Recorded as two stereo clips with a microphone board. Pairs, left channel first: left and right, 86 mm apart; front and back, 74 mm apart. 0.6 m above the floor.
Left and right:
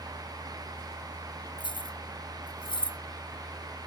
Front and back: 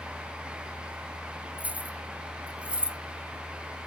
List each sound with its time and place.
1.6 s keys jangling: 110° left; by 3.0 s 105° left